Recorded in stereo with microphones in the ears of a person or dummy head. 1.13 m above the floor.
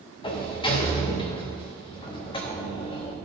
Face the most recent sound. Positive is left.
turn(degrees=25)  # may be behind; listen again after turning